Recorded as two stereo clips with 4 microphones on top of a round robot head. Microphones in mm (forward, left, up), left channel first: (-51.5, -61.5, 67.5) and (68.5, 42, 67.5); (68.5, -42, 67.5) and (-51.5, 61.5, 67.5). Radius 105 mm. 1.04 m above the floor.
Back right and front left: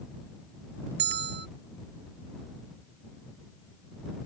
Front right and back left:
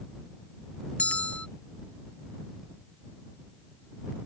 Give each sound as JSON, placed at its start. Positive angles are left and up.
{"t": 1.0, "sound": "a bell", "azimuth_deg": 40}